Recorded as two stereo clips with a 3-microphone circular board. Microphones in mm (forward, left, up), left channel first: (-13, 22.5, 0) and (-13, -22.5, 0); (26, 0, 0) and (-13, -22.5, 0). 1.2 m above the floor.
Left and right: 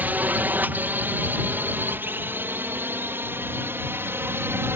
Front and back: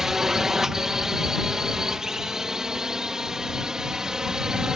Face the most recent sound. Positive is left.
turn(degrees=-75)